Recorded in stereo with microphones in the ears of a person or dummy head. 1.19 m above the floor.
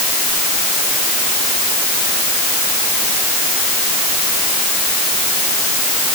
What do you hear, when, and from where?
Only background noise.